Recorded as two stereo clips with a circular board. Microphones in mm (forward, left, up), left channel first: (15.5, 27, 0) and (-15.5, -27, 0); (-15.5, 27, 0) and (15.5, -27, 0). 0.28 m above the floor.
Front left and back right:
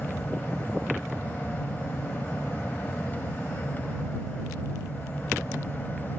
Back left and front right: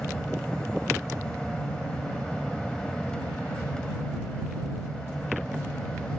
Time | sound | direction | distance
0.0 | an aircraft | 55° left | ?